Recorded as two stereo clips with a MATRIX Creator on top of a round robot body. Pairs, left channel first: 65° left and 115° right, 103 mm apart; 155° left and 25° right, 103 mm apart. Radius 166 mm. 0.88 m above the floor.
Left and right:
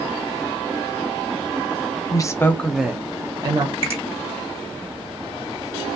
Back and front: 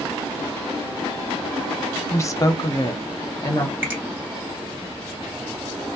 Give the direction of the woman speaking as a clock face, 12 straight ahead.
9 o'clock.